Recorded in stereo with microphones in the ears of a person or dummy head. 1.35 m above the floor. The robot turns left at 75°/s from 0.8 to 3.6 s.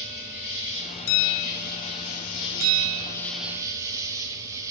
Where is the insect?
165° right, 1.6 m; by 4.7 s 15° right, 1.6 m.